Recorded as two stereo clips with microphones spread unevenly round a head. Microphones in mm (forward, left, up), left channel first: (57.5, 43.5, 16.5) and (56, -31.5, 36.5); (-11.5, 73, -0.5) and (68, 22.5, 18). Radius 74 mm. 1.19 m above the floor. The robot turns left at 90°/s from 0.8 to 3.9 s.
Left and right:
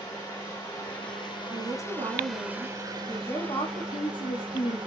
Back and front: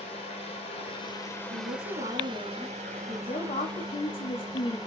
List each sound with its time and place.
0.0 s running water: 135° left, 4 m; by 4.9 s 140° right, 4 m
1.5 s a woman speaking: 25° right, 1.7 m; by 4.8 s 120° left, 1.7 m